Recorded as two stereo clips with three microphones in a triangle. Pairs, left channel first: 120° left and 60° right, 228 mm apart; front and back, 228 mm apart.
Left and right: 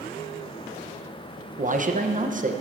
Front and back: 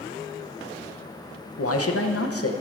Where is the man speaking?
Straight ahead, 0.7 m.